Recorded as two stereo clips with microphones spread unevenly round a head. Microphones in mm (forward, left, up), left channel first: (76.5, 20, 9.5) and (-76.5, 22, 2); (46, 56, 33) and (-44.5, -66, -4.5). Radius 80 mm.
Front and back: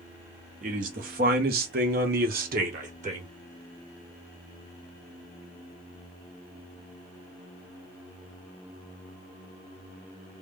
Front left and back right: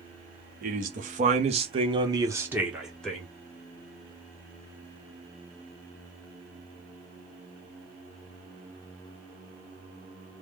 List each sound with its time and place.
0.6 s a man speaking: 145° right, 1.3 m; by 3.3 s 140° left, 1.0 m